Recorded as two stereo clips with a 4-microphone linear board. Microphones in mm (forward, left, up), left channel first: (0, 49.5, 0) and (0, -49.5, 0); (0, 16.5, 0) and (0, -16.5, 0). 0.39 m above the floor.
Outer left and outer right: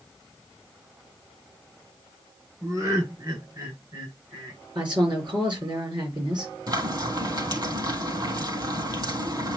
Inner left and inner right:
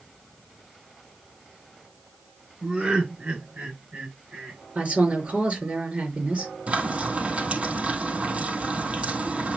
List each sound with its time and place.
2.6 s laughter: 35° right (ahead or behind), 6.5 m; by 4.6 s 45° right (ahead or behind), 5.5 m
4.8 s a woman speaking: 50° right (ahead or behind), 5.5 m
6.7 s frying: 45° right (ahead or behind), 3.5 m